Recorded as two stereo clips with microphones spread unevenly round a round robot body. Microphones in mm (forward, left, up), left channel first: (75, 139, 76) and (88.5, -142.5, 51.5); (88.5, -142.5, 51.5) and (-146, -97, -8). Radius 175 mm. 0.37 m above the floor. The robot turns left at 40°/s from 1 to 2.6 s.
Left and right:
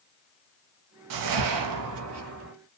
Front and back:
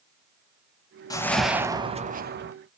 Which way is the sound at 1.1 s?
85° right.